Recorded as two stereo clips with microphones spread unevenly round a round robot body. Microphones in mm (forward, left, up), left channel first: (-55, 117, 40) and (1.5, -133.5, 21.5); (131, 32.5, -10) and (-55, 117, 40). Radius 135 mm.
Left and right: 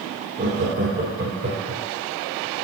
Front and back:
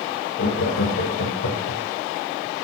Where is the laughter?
20° right, 2.5 m.